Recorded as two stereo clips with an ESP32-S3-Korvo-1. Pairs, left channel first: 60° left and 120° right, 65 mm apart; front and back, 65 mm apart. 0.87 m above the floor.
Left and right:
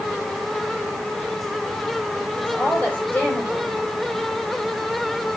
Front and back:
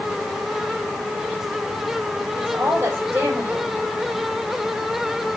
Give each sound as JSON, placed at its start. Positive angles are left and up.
{"t": 2.4, "sound": "a woman speaking", "azimuth_deg": 125, "distance_m": 4.5}